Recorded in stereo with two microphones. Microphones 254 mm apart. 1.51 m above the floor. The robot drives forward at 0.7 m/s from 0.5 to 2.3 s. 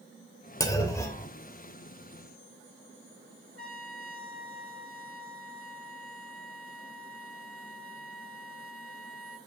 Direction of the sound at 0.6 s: 15° left (ahead or behind).